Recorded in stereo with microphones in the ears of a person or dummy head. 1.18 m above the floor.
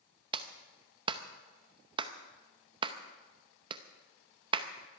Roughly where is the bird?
No bird in this recording.